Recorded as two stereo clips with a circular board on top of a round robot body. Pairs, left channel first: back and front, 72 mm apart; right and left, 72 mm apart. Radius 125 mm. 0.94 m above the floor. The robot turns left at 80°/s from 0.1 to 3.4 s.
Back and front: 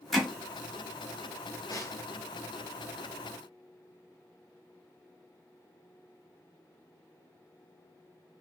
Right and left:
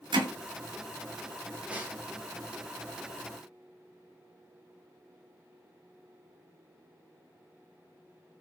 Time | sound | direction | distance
0.1 | hammering | 90° left | 1.0 m
1.7 | a snare drum | 160° left | 1.1 m